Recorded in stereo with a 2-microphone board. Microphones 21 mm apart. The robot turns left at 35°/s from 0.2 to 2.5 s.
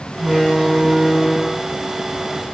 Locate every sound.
0.2 s a door slam: 70° left, 3.5 m; by 1.6 s 20° left, 3.5 m